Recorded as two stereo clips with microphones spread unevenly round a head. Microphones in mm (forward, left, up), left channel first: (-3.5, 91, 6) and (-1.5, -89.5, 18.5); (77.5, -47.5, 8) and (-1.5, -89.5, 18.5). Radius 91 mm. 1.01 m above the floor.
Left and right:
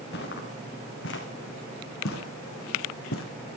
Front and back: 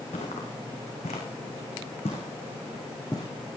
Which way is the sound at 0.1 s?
55° left.